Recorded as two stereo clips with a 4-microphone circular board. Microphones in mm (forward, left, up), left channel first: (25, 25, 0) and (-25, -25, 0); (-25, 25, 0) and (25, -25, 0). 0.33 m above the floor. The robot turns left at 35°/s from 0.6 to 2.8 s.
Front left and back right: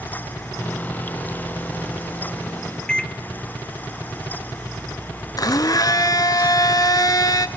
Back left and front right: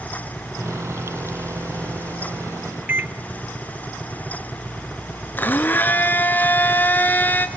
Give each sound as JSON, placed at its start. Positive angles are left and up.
{"t": 2.9, "sound": "a microwave", "azimuth_deg": -25, "distance_m": 0.7}
{"t": 5.4, "sound": "a blender", "azimuth_deg": 70, "distance_m": 0.9}